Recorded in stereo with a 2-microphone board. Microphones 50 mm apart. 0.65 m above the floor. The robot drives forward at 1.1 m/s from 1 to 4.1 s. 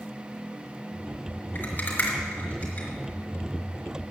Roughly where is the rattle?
Left.